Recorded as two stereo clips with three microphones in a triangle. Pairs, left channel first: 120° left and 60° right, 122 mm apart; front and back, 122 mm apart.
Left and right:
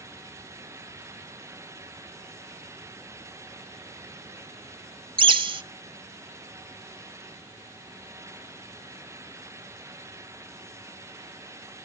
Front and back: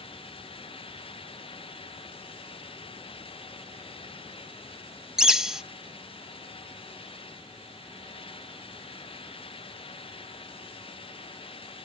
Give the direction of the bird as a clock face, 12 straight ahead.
3 o'clock.